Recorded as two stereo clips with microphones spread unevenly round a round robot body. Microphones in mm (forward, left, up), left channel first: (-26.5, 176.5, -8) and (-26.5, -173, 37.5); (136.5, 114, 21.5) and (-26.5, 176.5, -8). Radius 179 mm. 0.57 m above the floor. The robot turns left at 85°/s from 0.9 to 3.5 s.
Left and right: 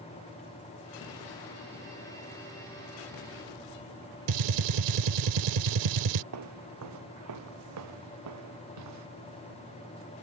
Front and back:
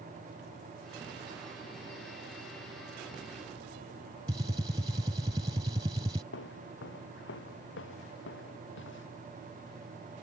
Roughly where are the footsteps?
Ahead right.